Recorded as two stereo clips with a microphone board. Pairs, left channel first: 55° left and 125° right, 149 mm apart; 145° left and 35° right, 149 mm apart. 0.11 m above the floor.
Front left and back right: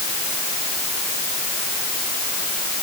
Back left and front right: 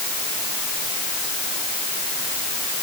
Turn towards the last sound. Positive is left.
No sound to turn to.